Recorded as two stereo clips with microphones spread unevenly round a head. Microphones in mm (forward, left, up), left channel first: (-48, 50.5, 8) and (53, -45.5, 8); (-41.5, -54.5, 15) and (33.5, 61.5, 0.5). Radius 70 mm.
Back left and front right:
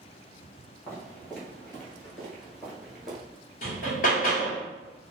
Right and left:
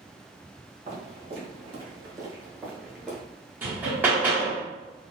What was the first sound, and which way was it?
Footsteps, 55° left.